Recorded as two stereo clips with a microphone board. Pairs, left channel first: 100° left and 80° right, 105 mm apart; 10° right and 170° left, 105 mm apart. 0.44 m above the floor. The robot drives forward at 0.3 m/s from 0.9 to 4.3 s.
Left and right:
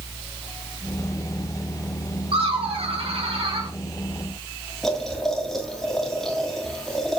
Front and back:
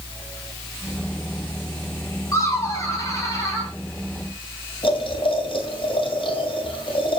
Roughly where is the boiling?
Ahead.